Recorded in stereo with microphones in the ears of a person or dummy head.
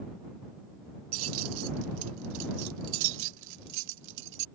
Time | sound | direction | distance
1.1 | keys jangling | 85° right | ?